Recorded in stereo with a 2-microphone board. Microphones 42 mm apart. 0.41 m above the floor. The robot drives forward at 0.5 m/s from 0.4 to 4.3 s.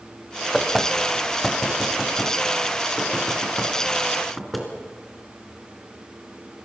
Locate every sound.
0.5 s knocking: 5° left (ahead or behind), 1.7 m; by 4.7 s centre (ahead or behind), 3.5 m